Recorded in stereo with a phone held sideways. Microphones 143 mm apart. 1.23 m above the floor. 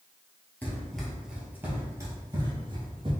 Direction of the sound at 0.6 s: 10° left (ahead or behind).